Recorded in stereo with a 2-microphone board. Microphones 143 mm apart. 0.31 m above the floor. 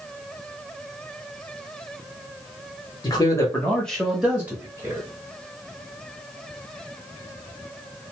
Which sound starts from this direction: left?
A man speaking, at 3.0 s.